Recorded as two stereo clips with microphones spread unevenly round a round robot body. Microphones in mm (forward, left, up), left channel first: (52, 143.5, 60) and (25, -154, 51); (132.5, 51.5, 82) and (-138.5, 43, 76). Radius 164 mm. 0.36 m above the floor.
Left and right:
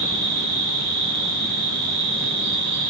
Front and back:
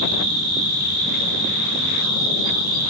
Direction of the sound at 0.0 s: 145° right.